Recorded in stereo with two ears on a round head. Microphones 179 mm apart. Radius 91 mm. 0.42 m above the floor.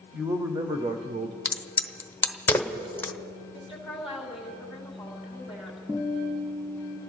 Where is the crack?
10° left (ahead or behind), 1.1 m.